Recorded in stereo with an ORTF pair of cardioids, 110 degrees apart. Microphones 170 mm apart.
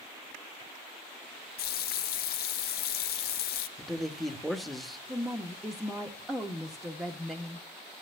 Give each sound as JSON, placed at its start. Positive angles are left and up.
{"t": 1.6, "sound": "a running tap", "azimuth_deg": 65, "distance_m": 0.9}
{"t": 3.8, "sound": "a man speaking", "azimuth_deg": 0, "distance_m": 1.4}
{"t": 5.1, "sound": "a woman speaking", "azimuth_deg": 0, "distance_m": 1.1}